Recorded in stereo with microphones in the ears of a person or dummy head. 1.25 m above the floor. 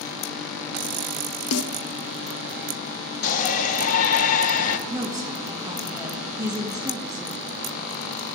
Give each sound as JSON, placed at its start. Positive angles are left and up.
{"t": 1.5, "sound": "a snare drum", "side_deg": 80, "distance_m": 0.7}
{"t": 3.2, "sound": "a shout", "side_deg": 45, "distance_m": 1.1}
{"t": 4.9, "sound": "a woman speaking", "side_deg": -10, "distance_m": 1.3}